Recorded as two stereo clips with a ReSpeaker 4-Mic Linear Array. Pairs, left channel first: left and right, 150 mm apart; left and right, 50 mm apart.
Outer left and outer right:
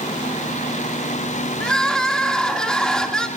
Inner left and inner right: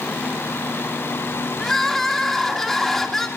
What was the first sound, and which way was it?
Crying, 5° left (ahead or behind).